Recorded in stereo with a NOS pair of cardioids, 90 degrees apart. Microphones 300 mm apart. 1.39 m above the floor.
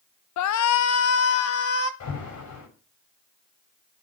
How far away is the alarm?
About 8.5 m.